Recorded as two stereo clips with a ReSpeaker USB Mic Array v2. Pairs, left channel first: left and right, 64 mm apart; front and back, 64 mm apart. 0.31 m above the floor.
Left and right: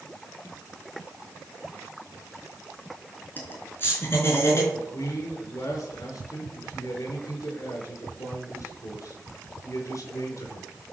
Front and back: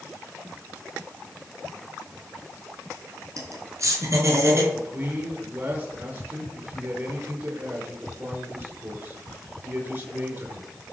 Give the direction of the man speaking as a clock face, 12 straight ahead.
8 o'clock.